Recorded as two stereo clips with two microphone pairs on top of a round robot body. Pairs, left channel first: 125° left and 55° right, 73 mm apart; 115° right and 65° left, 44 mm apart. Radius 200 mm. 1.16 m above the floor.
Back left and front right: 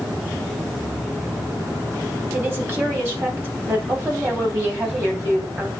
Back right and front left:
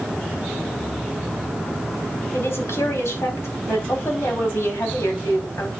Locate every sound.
2.3 s a woman speaking: 120° right, 5 m